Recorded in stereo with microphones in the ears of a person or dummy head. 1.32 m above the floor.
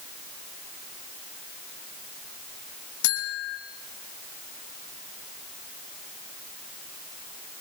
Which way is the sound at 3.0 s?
75° left (ahead or behind).